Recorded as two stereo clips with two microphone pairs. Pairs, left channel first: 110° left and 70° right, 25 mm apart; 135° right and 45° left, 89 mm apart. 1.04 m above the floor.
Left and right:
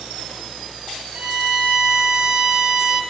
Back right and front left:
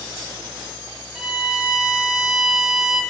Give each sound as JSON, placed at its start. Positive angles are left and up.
{"t": 1.1, "sound": "a violin", "azimuth_deg": -35, "distance_m": 0.8}